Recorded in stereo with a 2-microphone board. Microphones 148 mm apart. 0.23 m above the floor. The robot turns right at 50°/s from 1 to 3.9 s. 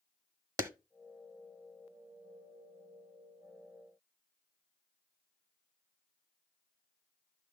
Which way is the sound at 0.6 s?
20° right (ahead or behind).